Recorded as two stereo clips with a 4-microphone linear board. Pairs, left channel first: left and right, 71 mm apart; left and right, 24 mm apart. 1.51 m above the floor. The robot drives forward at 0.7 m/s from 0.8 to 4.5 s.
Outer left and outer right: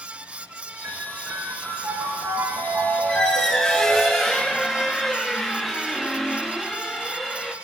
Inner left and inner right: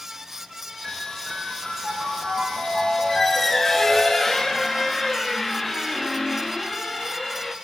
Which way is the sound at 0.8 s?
40° right (ahead or behind).